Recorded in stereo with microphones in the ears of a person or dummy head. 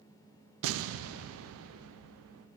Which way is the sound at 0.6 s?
70° right (ahead or behind).